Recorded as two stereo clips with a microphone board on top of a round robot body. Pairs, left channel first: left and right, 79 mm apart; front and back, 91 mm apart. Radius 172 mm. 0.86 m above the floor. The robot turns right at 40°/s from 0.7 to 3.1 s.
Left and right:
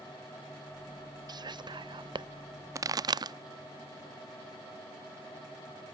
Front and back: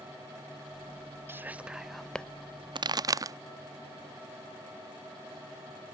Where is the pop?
140° right; by 3.4 s 130° right.